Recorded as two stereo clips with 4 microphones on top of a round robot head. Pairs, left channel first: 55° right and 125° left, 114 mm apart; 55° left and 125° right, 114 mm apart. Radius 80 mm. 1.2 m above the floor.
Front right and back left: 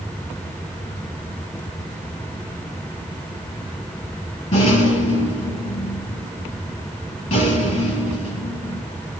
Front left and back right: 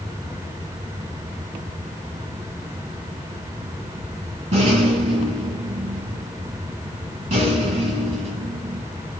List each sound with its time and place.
4.5 s a rattle: 85° right, 6 m